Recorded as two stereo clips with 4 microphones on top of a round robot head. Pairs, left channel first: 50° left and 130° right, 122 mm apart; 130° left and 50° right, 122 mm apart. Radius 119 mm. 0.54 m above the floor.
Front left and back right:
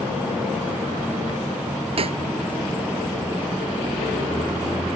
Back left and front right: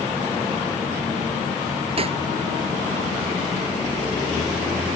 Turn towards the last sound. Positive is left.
turn(degrees=-90)